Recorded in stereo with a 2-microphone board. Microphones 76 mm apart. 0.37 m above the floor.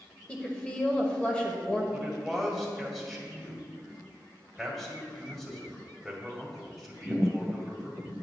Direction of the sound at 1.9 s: 5° left (ahead or behind).